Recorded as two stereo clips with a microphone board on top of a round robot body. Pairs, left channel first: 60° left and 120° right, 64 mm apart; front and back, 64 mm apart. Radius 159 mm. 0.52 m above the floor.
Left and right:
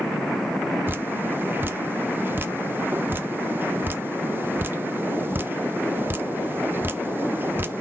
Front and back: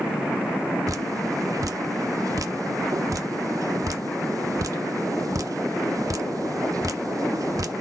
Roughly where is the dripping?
Behind.